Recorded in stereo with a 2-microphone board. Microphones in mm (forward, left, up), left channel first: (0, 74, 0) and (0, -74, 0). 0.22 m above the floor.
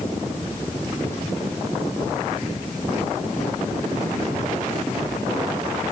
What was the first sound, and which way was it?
Only background noise.